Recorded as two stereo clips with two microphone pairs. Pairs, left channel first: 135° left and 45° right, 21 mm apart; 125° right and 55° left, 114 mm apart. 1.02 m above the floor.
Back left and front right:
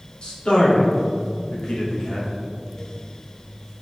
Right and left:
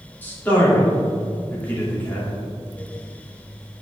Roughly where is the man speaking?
Behind.